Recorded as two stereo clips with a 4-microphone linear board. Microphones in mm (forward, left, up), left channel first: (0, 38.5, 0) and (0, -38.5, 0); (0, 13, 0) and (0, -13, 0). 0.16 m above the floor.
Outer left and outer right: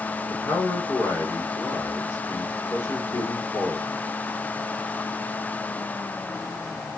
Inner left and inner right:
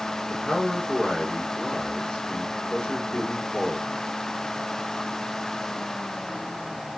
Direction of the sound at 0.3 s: 40° left (ahead or behind).